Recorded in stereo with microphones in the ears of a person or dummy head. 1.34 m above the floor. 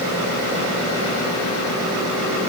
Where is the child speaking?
No child speaking in this recording.